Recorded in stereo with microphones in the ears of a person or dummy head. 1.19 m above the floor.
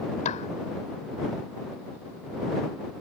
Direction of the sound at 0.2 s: 40° left (ahead or behind).